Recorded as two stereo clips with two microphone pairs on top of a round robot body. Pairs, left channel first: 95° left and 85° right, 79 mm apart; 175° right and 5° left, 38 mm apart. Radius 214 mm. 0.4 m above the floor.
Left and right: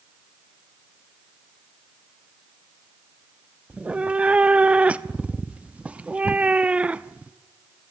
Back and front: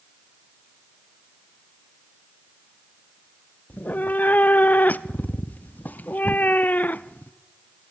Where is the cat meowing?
155° right, 0.6 m.